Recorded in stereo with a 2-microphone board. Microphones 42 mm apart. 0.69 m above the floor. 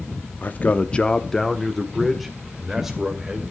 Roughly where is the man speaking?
Left.